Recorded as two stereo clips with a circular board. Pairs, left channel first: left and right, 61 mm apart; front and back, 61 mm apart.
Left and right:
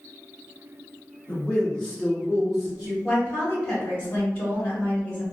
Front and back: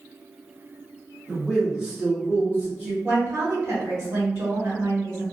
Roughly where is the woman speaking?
Behind left.